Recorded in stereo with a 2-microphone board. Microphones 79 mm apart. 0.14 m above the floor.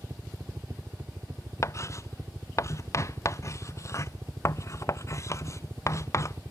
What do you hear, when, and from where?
0.0 s a helicopter: 40° right (ahead or behind)
1.6 s writing: 40° left (ahead or behind)